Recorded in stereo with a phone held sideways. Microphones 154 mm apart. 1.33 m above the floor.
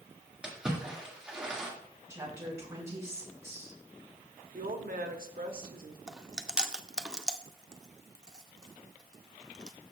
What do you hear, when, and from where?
0.4 s a splash: 5° right (ahead or behind), 1.9 m
2.1 s a woman speaking: 20° right (ahead or behind), 5 m
4.5 s a woman speaking: 70° right (ahead or behind), 1.1 m
6.1 s chewing: 5° right (ahead or behind), 0.6 m